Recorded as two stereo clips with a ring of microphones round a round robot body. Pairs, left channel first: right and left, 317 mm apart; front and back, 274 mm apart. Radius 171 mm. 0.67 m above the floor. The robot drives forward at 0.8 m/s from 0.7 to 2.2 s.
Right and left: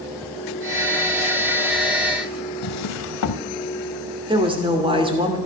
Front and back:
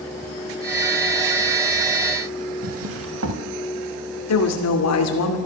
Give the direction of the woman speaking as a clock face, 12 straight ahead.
11 o'clock.